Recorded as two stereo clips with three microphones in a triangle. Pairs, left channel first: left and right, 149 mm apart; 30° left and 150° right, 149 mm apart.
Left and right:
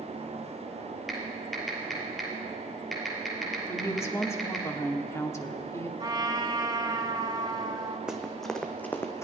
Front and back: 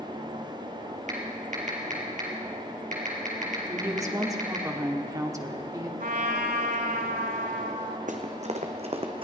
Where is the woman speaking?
155° left, 1.1 m.